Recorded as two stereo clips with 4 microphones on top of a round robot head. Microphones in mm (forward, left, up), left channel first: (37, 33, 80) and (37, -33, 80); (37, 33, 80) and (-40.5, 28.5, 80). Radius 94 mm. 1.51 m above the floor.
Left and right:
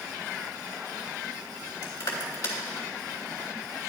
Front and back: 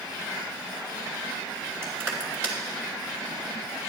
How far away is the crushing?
About 2.5 m.